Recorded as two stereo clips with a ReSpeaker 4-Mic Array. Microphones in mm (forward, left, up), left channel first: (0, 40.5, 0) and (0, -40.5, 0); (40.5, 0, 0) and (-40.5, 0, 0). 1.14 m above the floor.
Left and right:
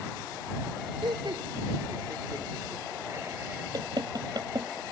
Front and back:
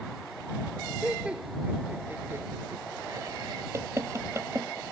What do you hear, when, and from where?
1.0 s laughter: 100° right; by 3.6 s 150° right
3.7 s knocking: 125° right